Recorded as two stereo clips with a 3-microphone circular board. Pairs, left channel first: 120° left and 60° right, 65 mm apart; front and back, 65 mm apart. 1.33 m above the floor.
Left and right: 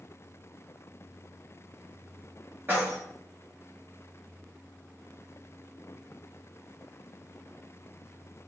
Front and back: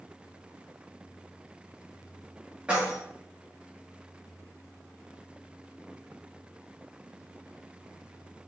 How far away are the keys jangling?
About 1.2 m.